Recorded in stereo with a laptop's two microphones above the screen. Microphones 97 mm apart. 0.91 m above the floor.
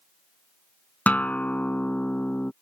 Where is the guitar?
15° left (ahead or behind).